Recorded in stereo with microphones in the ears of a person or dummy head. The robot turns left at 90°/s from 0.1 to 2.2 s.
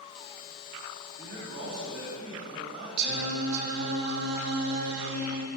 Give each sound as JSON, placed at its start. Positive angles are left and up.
{"t": 1.2, "sound": "a man speaking", "azimuth_deg": -40, "distance_m": 1.7}
{"t": 3.0, "sound": "singing", "side_deg": -50, "distance_m": 0.6}